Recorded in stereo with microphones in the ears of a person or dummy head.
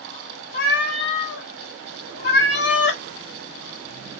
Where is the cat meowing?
60° left (ahead or behind), 1.0 m.